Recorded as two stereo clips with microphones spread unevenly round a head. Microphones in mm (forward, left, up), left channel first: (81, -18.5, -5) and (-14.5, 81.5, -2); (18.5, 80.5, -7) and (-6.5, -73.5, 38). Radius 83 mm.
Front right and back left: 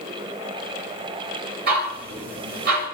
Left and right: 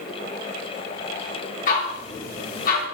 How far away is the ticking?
About 7 m.